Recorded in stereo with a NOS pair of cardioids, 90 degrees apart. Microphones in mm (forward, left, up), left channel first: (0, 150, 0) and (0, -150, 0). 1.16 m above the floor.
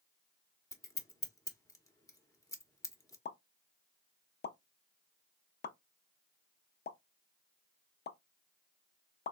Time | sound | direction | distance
0.7 | scissors | 10° left | 0.8 m
3.2 | a pop | 35° left | 0.6 m